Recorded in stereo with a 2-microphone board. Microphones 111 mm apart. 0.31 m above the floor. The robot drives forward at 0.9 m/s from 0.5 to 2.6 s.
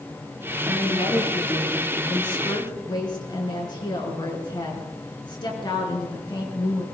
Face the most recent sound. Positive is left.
turn(degrees=40)  # may be behind; listen again after turning